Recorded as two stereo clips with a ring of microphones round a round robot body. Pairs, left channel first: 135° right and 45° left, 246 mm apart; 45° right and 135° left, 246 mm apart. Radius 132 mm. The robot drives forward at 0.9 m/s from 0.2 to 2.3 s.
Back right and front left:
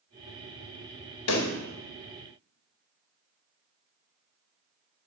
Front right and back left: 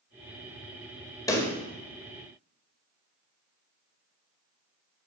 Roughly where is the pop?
Behind right.